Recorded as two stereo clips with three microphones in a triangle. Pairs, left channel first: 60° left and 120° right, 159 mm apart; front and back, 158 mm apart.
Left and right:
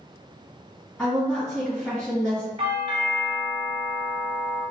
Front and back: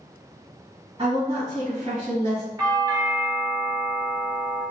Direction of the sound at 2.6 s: 130° right.